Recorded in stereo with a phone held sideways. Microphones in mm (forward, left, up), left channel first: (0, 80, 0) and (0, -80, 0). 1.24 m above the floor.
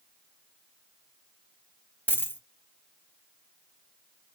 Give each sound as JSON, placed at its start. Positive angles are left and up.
{"t": 2.1, "sound": "a dropped coin", "side_deg": 10, "distance_m": 0.7}